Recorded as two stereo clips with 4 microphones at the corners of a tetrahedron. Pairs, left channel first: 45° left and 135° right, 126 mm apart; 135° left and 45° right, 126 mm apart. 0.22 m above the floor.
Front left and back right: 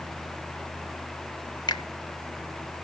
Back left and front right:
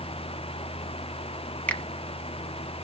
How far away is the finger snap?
About 1.1 m.